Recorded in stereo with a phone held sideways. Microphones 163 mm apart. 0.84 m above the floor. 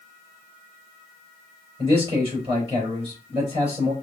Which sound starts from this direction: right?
A man speaking, at 1.8 s.